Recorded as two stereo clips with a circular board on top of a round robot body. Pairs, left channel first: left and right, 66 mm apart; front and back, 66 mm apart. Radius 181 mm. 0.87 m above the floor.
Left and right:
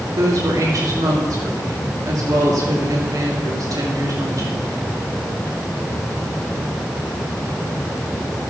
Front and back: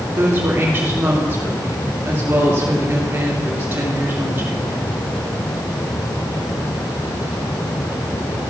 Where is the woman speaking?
120° right, 3 m.